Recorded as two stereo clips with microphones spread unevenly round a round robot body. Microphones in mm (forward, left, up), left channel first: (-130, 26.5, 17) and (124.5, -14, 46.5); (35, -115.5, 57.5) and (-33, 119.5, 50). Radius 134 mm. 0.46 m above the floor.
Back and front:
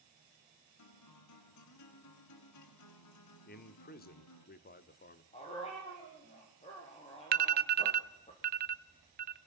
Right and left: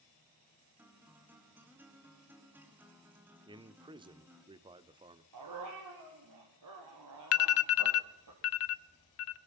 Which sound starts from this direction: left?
A dog barking, at 5.3 s.